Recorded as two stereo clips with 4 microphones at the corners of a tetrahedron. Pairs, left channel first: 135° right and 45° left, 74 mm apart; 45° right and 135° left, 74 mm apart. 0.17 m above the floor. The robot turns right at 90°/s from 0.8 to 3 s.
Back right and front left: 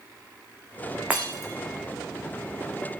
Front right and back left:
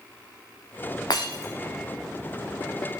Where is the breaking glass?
25° right, 3.5 m; by 1.5 s 10° left, 3.5 m.